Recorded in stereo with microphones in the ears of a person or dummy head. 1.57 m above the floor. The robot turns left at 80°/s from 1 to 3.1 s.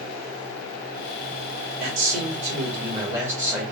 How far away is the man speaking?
About 1.7 m.